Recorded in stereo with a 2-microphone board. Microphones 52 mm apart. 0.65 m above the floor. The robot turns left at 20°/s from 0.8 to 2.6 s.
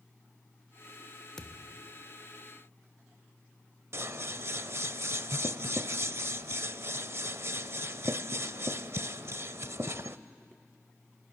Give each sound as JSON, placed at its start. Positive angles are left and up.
{"t": 1.4, "sound": "a thud", "side_deg": 10, "distance_m": 0.9}
{"t": 3.9, "sound": "scissors", "side_deg": -60, "distance_m": 0.6}